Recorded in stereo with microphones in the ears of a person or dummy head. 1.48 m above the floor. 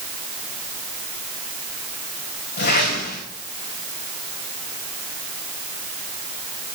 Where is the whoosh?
55° left (ahead or behind), 4 m.